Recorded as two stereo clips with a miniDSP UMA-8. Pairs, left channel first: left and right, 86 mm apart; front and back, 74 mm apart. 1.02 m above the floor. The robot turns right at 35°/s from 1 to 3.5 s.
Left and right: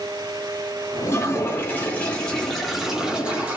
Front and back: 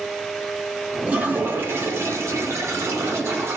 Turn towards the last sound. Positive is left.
turn(degrees=-155)